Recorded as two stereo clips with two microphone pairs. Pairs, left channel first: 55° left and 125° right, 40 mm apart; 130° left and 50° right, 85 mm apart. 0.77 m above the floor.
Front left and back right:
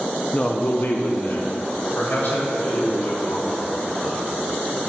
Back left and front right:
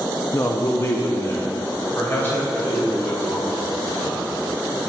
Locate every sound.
0.3 s a man speaking: 110° left, 0.6 m; by 4.3 s 65° left, 6 m